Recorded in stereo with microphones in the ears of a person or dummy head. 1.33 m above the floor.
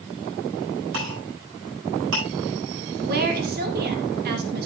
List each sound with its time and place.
0.9 s a clink: 65° right (ahead or behind), 8.5 m
3.0 s a woman speaking: 55° right (ahead or behind), 2.5 m